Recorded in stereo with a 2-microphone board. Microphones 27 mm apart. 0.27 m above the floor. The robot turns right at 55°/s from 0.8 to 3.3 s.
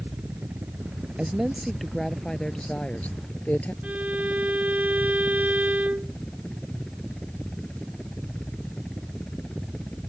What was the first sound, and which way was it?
A helicopter, 105° right.